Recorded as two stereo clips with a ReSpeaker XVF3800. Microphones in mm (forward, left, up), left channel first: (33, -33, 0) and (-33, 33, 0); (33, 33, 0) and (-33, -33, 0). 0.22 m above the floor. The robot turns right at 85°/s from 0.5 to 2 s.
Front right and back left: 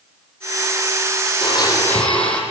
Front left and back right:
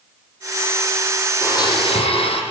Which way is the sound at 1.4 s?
15° right.